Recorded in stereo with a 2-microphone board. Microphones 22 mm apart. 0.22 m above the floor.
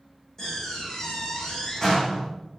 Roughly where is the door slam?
Left.